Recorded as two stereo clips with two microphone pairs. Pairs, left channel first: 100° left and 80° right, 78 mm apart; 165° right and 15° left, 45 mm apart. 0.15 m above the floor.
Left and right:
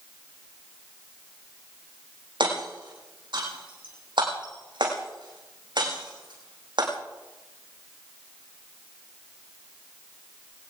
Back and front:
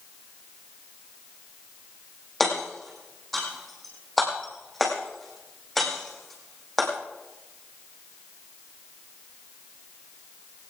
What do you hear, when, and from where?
2.4 s hammering: 80° right, 7 m